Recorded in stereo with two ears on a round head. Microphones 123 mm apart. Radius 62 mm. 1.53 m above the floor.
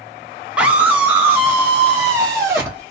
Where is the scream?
5° right (ahead or behind), 0.7 m; by 2.8 s 20° right (ahead or behind), 2 m.